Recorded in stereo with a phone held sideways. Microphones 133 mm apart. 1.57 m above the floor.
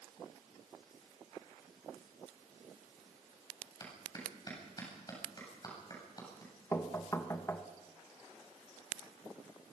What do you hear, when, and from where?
3.8 s a clap: 30° left (ahead or behind), 8.5 m
6.7 s knocking: 20° left (ahead or behind), 1.5 m